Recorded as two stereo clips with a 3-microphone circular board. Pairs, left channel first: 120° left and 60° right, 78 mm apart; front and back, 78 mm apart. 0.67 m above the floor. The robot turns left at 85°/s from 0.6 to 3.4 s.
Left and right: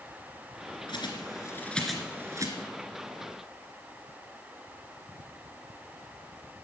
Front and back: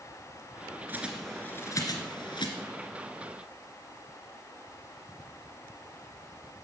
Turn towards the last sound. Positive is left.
turn(degrees=-95)